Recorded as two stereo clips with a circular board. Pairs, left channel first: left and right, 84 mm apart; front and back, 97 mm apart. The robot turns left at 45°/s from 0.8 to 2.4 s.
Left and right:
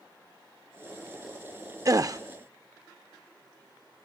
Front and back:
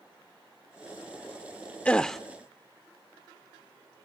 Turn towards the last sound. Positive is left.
turn(degrees=-95)